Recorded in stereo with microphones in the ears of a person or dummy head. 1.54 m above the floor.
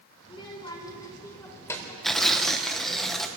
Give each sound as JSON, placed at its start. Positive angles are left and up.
{"t": 0.2, "sound": "a child speaking", "side_deg": 25, "distance_m": 4.0}
{"t": 2.0, "sound": "tearing paper", "side_deg": 0, "distance_m": 1.5}